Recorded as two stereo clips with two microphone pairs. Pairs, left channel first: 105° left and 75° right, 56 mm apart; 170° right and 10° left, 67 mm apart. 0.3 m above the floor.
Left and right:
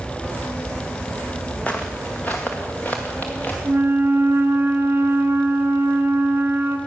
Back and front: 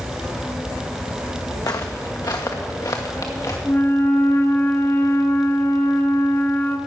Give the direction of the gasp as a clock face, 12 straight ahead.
I don't hear a gasp.